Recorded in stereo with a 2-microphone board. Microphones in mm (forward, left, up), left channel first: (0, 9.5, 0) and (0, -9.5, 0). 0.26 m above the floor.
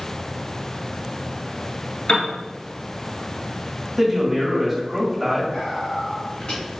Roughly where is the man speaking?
Centre.